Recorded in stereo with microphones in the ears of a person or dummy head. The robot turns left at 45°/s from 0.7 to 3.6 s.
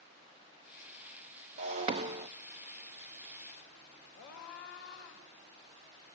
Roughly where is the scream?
Left.